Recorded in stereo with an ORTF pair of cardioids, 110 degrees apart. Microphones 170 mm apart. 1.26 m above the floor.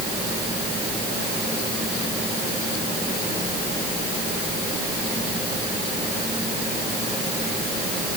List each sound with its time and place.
Only background noise.